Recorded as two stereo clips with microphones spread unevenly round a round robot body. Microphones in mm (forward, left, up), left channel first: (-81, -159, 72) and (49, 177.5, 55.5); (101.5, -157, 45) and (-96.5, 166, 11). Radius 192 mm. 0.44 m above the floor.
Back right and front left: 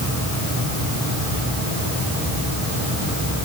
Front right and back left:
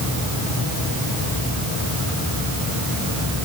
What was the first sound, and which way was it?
Only background noise.